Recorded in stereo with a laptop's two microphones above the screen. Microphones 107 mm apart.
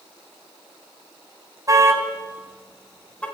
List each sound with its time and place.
1.7 s a car horn: 30° right (ahead or behind), 2.5 m; by 3.2 s 10° left (ahead or behind), 3.5 m